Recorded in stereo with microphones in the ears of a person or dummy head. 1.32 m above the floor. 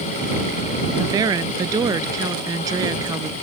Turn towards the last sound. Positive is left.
turn(degrees=-20)  # may be behind; listen again after turning